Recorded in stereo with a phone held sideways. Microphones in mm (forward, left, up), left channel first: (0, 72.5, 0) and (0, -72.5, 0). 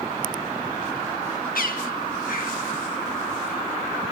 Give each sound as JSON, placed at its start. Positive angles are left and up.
{"t": 1.6, "sound": "a bird", "side_deg": 70, "distance_m": 2.0}